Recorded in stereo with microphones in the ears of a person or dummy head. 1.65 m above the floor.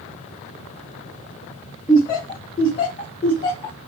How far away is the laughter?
About 0.7 m.